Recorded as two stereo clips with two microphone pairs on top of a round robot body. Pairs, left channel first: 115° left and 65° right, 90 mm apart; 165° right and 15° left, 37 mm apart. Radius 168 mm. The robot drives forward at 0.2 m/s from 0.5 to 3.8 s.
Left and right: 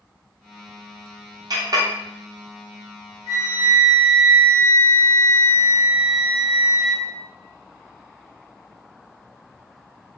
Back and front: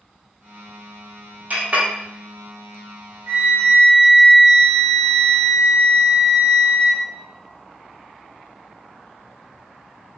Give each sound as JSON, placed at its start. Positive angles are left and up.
{"t": 1.5, "sound": "a clink", "azimuth_deg": -25, "distance_m": 0.8}
{"t": 3.3, "sound": "a flute", "azimuth_deg": -30, "distance_m": 0.7}